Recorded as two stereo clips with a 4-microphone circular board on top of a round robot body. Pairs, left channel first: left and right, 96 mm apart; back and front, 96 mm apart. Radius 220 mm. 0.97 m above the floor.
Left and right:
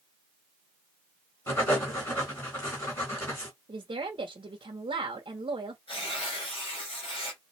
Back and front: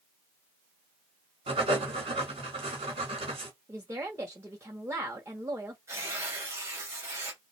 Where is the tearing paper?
60° left, 3 m.